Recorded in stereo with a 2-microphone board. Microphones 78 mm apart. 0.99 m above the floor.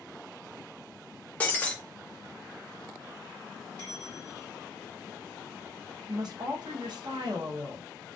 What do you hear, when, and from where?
1.4 s breaking glass: 20° left (ahead or behind), 0.5 m
3.8 s a bell: 75° right (ahead or behind), 1.7 m
6.1 s a woman speaking: 65° right (ahead or behind), 0.7 m